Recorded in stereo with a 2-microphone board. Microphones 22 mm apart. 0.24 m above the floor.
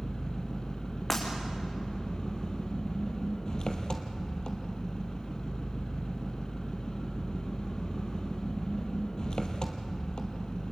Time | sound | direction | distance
0.0 | an engine running | 40° left (ahead or behind) | 1.8 m
1.1 | breaking glass | 15° left (ahead or behind) | 4.5 m